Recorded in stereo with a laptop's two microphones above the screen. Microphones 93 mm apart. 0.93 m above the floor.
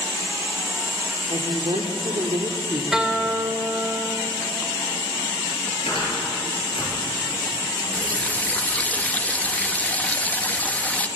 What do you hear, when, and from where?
1.3 s a woman speaking: 75° right (ahead or behind), 2 m
2.9 s a guitar: 5° right (ahead or behind), 2 m
5.9 s a cupboard door: 70° left (ahead or behind), 8 m
7.9 s a running tap: 15° left (ahead or behind), 0.7 m